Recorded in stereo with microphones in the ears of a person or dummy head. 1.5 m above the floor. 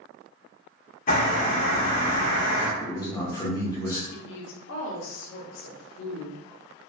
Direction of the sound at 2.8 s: 10° left (ahead or behind).